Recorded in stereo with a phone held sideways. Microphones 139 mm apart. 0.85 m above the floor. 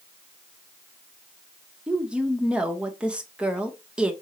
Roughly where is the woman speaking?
Centre.